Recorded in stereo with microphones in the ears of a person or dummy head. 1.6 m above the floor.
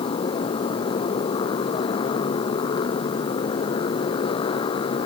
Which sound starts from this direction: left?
A motorcycle, at 0.0 s.